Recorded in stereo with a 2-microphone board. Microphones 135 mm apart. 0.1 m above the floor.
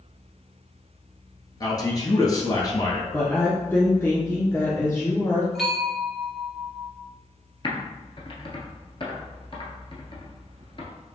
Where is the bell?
Centre (ahead or behind), 1.2 m.